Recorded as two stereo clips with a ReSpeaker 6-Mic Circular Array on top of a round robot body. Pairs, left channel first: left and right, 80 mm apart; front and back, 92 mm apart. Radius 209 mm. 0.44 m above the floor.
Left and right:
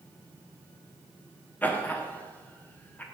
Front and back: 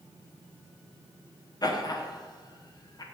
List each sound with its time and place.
1.6 s laughter: 25° left, 1.3 m